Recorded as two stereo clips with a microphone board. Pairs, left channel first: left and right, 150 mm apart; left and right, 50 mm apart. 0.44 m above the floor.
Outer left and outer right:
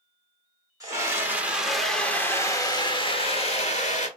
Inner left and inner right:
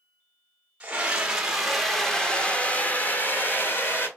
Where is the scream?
25° right (ahead or behind), 1.3 m; by 4.1 s 50° left (ahead or behind), 1.6 m.